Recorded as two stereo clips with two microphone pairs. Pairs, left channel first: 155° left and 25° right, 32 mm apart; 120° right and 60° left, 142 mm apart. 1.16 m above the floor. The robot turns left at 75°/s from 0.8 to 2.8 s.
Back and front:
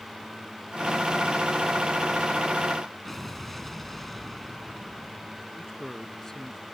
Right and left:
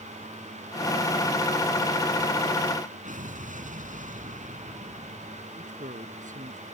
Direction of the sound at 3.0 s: 75° left.